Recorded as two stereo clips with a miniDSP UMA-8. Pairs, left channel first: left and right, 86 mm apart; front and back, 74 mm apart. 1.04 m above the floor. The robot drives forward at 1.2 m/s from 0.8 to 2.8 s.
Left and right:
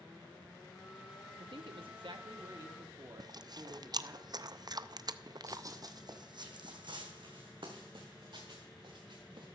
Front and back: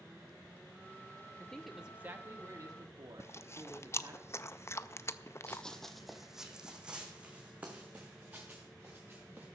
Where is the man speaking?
75° right, 1.3 m; by 4.2 s 140° right, 1.8 m.